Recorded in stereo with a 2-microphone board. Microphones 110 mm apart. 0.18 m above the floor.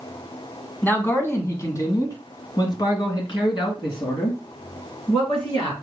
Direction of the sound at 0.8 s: 15° left (ahead or behind).